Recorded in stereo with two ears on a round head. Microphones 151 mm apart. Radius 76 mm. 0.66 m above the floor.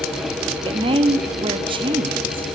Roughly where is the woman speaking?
Right.